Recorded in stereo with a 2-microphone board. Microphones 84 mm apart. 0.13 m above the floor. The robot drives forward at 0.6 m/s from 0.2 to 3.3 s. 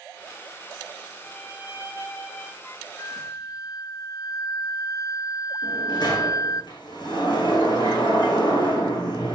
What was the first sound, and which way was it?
A violin, 35° left (ahead or behind).